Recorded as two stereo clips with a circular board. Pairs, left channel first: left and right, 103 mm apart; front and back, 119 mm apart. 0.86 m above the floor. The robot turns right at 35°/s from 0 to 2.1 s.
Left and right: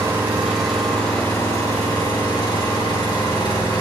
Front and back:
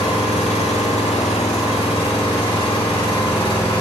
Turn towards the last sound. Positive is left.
turn(degrees=45)